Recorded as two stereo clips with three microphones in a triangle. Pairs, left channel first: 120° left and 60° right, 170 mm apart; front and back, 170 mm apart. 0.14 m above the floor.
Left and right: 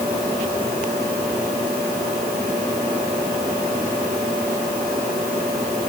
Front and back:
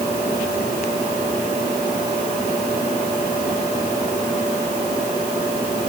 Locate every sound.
Only background noise.